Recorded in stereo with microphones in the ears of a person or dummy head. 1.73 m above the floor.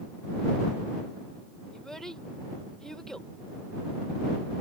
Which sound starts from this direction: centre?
A child speaking, at 1.7 s.